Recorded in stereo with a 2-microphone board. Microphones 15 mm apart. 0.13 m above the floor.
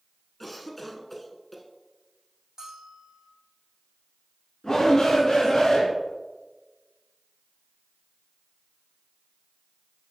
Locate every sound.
0.4 s a cough: 5° left (ahead or behind), 1.2 m
2.6 s a bell: 45° right (ahead or behind), 2.5 m
4.6 s a shout: 30° left (ahead or behind), 1.9 m